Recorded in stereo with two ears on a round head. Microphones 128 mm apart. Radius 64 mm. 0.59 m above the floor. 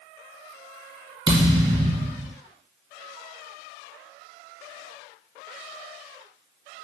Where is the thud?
25° right (ahead or behind), 1.4 m.